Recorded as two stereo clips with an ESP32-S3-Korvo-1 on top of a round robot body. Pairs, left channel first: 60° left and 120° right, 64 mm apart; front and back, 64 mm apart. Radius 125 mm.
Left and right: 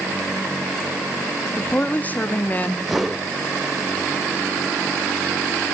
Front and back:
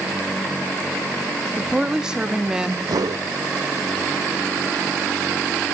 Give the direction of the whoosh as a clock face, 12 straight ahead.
7 o'clock.